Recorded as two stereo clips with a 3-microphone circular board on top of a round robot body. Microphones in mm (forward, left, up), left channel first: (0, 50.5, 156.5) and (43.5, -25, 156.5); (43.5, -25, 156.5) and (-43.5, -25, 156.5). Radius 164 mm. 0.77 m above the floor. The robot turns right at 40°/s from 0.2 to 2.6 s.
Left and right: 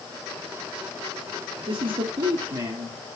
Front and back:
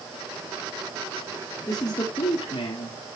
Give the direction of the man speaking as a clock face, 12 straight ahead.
2 o'clock.